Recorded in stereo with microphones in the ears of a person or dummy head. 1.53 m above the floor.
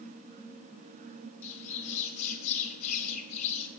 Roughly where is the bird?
Left.